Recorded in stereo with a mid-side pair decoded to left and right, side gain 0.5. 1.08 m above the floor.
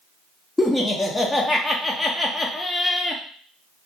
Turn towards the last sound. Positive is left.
turn(degrees=15)